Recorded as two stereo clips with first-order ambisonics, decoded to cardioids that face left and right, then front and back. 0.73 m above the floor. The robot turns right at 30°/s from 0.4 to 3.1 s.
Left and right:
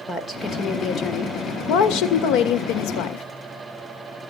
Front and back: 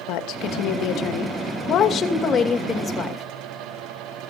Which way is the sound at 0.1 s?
15° left.